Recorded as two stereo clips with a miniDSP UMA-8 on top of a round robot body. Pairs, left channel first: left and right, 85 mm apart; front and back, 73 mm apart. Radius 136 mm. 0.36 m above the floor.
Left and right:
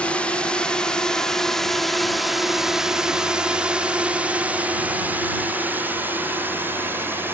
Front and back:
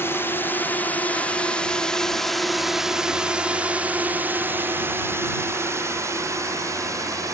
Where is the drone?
25° left; by 7.3 s 150° right.